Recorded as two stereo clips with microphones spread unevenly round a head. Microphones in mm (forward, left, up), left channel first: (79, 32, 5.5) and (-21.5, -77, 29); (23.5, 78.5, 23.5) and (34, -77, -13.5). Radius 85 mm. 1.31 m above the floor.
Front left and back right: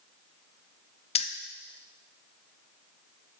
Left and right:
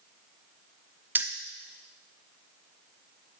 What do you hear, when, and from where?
1.1 s keys jangling: 5° right, 0.6 m